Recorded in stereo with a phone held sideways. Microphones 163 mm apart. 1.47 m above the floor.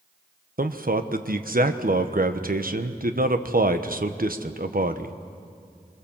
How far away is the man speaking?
About 1.1 m.